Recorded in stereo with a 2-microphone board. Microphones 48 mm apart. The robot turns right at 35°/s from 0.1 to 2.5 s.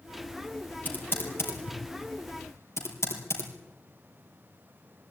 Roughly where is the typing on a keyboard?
Left.